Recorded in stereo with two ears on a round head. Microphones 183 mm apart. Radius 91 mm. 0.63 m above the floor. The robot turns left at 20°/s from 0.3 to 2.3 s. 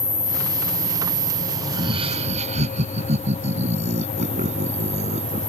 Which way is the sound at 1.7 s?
20° right (ahead or behind).